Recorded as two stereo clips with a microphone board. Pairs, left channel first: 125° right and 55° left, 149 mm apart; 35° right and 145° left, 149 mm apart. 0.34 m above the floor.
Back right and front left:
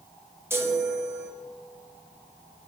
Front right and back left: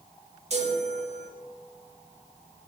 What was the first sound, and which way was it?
A chime, 125° left.